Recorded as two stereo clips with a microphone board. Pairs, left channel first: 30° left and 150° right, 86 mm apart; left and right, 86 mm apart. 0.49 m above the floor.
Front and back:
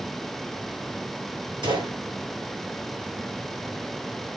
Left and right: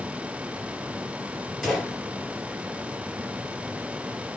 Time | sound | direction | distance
1.6 | a gunshot | straight behind | 7.5 m